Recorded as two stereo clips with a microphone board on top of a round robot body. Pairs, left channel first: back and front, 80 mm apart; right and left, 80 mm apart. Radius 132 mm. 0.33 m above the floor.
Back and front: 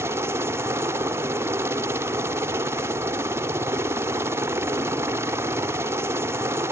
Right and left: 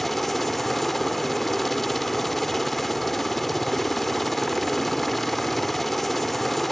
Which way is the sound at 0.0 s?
5° right.